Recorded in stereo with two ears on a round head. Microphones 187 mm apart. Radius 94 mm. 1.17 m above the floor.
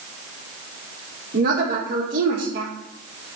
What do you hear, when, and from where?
1.3 s a woman speaking: 45° right (ahead or behind), 1.9 m